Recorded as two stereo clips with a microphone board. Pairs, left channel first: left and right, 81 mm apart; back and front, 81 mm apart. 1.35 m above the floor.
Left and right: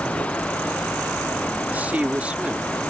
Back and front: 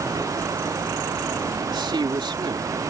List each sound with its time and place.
1.7 s a man speaking: 20° right; by 2.7 s 15° right